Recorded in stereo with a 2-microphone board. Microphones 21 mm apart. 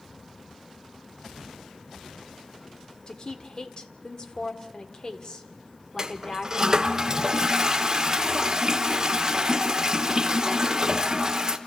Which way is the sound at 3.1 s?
35° left (ahead or behind).